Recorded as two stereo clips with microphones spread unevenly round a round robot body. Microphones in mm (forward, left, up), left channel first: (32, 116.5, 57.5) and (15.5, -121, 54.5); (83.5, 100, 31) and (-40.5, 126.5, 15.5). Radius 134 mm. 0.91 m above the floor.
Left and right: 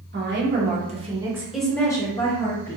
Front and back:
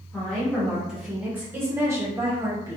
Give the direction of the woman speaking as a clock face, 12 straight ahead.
3 o'clock.